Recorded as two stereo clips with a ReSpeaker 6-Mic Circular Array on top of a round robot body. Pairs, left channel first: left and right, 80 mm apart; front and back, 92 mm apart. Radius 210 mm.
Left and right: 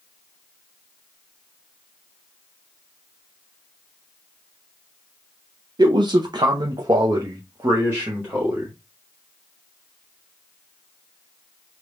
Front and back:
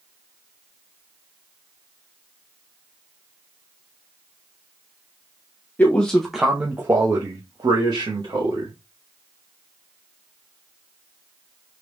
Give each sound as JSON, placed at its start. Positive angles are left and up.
{"t": 5.8, "sound": "a man speaking", "azimuth_deg": -70, "distance_m": 0.9}